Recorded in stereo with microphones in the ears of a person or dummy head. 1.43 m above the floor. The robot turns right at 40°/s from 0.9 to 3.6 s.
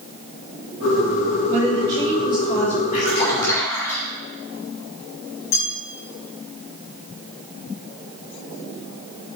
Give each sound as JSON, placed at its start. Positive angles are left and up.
{"t": 1.5, "sound": "a woman speaking", "azimuth_deg": -5, "distance_m": 2.0}
{"t": 2.9, "sound": "a splash", "side_deg": 45, "distance_m": 3.0}
{"t": 5.5, "sound": "a bell", "side_deg": 55, "distance_m": 3.5}